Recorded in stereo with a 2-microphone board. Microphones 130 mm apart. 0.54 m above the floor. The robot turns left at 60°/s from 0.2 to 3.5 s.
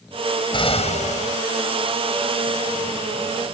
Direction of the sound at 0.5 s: 135° left.